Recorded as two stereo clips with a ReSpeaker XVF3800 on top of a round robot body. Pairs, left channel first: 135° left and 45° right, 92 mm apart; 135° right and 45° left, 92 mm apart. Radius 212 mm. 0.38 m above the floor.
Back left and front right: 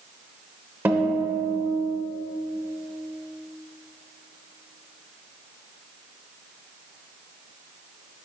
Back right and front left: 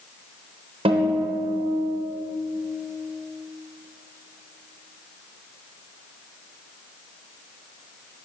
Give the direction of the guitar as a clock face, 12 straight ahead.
11 o'clock.